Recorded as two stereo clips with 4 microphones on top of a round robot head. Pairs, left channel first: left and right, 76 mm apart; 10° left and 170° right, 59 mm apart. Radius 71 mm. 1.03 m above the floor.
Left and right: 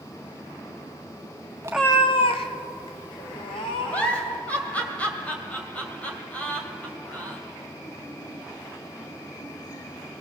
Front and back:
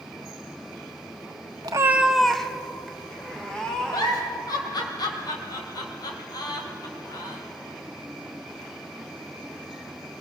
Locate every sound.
1.6 s a cat meowing: 145° right, 0.6 m; by 4.4 s 85° left, 4 m
3.9 s a giggle: 15° left, 2.5 m